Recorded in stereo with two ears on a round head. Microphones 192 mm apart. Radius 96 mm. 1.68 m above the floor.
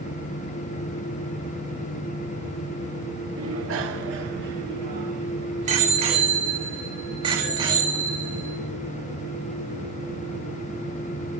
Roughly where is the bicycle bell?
Right.